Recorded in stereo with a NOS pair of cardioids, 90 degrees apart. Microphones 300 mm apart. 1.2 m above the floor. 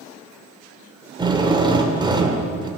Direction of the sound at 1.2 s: 15° right.